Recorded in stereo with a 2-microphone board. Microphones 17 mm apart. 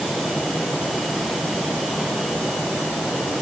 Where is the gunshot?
No gunshot in this recording.